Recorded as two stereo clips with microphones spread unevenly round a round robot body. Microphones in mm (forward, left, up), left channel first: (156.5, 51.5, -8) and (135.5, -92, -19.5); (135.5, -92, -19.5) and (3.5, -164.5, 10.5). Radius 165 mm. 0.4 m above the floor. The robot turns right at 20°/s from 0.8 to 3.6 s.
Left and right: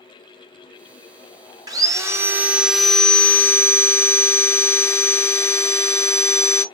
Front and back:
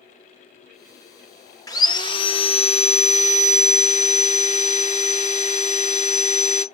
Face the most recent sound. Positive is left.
turn(degrees=5)